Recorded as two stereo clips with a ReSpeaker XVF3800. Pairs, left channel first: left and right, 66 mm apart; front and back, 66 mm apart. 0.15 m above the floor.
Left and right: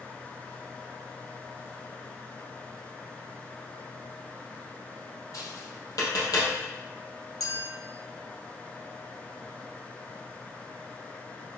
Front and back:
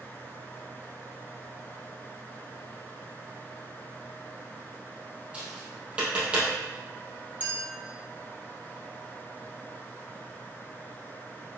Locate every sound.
5.3 s tapping: 110° left, 3.5 m
7.4 s a clink: 115° left, 2.5 m